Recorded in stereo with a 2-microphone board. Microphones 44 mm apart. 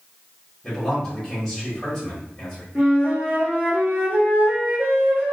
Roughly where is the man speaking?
Centre.